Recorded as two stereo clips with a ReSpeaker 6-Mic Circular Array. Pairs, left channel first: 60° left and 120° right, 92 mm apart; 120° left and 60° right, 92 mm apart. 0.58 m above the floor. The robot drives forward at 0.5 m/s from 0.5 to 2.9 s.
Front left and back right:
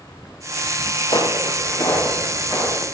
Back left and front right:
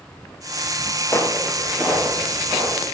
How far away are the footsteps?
About 0.8 m.